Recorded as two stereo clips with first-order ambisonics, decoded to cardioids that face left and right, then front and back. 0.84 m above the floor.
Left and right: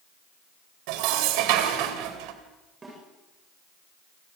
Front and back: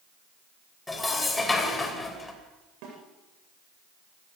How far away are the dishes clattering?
About 2.5 m.